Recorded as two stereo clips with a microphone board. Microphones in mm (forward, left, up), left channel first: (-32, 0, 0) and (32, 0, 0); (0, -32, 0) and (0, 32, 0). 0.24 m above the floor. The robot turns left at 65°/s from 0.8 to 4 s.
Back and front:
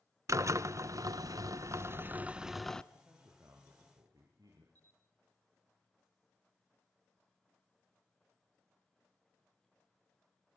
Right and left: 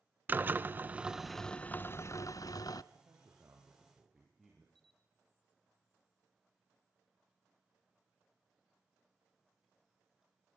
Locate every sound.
0.3 s a drill: 30° left, 0.8 m; by 2.8 s 100° right, 0.8 m
2.9 s a man speaking: 70° left, 5.5 m; by 4.7 s straight ahead, 5.5 m
4.8 s a camera shutter: 10° right, 1.5 m